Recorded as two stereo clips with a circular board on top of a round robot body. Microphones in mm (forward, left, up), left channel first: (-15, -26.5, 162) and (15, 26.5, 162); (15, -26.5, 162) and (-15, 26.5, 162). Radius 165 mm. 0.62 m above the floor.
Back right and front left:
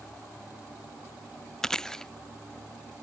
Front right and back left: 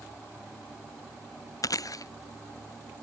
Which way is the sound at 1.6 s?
40° right.